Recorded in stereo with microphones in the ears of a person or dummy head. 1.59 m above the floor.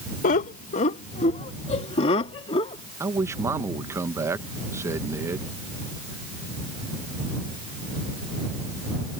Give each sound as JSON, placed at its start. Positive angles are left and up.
{"t": 0.2, "sound": "laughter", "side_deg": 50}
{"t": 3.0, "sound": "a man speaking", "side_deg": -20}